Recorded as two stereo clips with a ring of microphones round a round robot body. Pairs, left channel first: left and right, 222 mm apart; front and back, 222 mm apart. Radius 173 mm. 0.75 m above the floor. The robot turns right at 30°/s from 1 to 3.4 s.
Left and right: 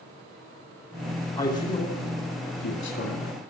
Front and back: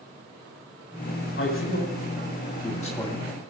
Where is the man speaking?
35° left, 2.5 m; by 3.5 s 95° left, 2.5 m.